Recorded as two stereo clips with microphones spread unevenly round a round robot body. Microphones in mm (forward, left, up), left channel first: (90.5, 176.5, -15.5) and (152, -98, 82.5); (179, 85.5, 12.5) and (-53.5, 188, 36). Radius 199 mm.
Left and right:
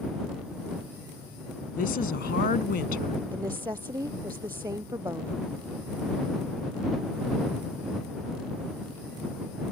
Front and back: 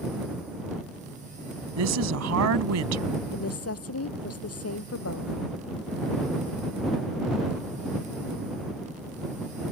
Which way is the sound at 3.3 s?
Straight ahead.